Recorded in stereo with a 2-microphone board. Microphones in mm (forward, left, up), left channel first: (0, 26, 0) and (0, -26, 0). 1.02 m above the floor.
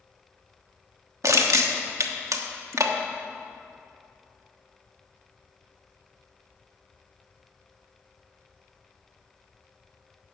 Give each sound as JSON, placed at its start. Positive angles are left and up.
{"t": 1.2, "sound": "crushing", "side_deg": -80, "distance_m": 1.1}